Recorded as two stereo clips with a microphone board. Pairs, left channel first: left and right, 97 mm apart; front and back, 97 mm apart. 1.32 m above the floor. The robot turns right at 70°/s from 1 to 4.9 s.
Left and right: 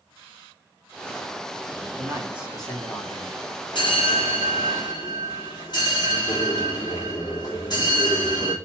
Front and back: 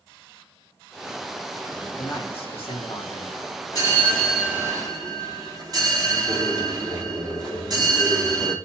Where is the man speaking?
40° right, 2 m; by 3.4 s 60° left, 2 m.